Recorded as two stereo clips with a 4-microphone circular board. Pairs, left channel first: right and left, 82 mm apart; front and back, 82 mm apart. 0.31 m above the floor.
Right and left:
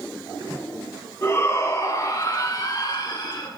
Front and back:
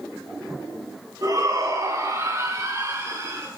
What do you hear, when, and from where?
1.2 s a shout: 145° right, 2.5 m; by 3.5 s 125° right, 4.5 m